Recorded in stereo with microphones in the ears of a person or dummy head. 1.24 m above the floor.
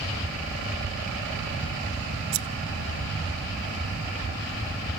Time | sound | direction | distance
2.3 | scissors | 70° right (ahead or behind) | 0.9 m